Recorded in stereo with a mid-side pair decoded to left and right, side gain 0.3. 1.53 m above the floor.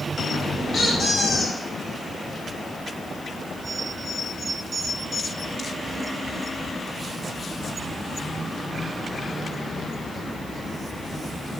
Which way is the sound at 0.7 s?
70° left.